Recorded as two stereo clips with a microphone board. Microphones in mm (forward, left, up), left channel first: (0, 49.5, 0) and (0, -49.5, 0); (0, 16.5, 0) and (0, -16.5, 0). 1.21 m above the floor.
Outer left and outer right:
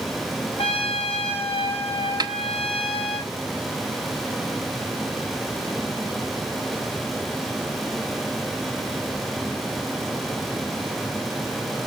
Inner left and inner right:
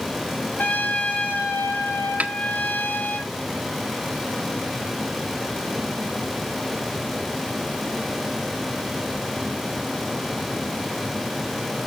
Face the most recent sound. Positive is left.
turn(degrees=-45)  # may be behind; listen again after turning